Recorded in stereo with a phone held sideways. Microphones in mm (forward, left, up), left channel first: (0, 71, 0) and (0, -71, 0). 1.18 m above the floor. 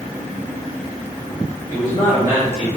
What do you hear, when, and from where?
1.7 s a man speaking: 20° left (ahead or behind), 3 m